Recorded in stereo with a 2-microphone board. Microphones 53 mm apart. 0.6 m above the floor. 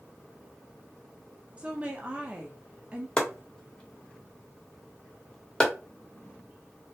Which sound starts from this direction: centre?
Chopping, at 3.2 s.